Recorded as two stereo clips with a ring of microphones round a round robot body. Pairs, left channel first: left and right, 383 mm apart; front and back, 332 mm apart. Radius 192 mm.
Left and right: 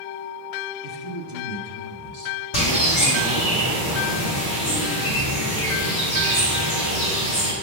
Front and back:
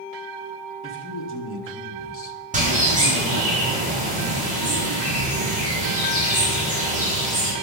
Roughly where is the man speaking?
Ahead left.